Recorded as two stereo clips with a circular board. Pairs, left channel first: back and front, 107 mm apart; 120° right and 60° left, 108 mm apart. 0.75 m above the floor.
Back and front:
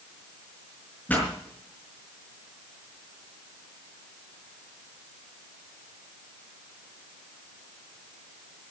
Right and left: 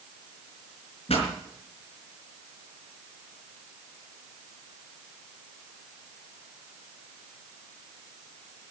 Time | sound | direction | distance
1.1 | a pop | 105° right | 4.5 m